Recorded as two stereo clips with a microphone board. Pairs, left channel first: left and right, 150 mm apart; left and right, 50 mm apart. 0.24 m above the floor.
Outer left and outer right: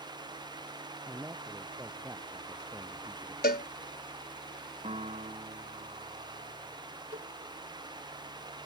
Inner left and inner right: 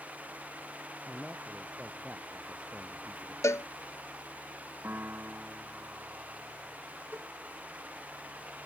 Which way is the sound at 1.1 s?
15° right (ahead or behind).